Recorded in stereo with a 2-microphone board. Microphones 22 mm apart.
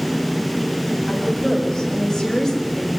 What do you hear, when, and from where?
1.1 s a woman speaking: 20° left (ahead or behind), 7 m; by 2.9 s 5° left (ahead or behind), 7 m